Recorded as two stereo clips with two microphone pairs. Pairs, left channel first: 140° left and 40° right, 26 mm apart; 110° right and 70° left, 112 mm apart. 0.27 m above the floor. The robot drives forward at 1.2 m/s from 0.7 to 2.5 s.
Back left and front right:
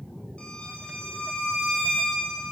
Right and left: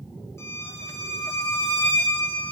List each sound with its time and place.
0.4 s a violin: 175° right, 4.5 m